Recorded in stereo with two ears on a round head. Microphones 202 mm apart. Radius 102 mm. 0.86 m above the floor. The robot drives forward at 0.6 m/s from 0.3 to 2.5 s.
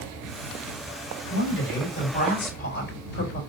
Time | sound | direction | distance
1.3 | a woman speaking | 60° left (ahead or behind) | 3 m